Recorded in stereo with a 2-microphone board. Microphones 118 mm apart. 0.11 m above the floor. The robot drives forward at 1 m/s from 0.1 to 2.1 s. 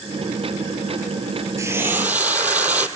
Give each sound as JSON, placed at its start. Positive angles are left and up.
{"t": 1.6, "sound": "frying", "side_deg": -25, "distance_m": 0.5}